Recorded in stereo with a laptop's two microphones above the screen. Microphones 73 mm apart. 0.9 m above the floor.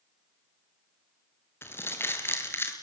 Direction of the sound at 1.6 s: 35° left (ahead or behind).